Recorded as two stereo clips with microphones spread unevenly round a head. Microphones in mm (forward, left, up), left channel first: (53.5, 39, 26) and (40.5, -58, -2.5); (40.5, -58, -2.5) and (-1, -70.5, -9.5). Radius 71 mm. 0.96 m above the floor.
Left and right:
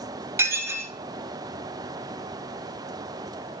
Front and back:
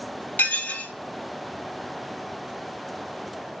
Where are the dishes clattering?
35° right, 1.6 m.